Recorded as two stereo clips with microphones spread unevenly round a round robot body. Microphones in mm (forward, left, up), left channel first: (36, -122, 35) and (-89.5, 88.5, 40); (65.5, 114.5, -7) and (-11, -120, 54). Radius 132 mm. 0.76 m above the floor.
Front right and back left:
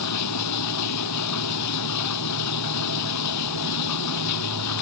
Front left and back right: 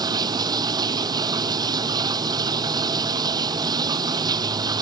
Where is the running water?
35° right.